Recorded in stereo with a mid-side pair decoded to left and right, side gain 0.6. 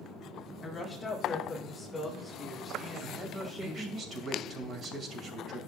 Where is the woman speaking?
25° left, 2 m; by 4.0 s 30° right, 1.8 m.